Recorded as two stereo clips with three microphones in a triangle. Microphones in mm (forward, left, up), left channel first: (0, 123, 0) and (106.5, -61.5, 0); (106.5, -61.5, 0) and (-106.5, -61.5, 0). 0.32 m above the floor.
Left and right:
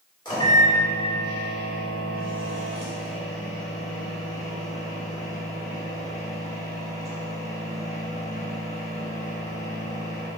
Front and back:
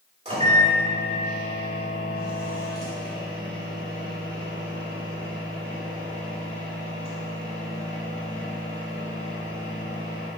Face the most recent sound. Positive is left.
turn(degrees=165)